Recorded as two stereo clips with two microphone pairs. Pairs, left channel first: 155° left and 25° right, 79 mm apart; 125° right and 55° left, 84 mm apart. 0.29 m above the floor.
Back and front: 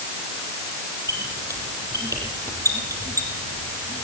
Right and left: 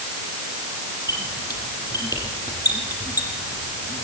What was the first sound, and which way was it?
A squeak, 75° right.